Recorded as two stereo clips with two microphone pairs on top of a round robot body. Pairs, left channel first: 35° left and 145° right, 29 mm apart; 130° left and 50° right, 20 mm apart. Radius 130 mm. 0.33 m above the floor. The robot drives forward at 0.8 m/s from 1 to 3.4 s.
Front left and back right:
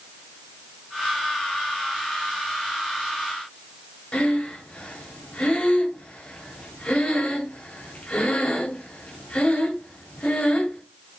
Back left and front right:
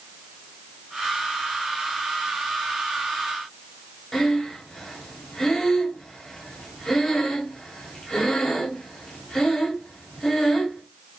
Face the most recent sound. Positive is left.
turn(degrees=80)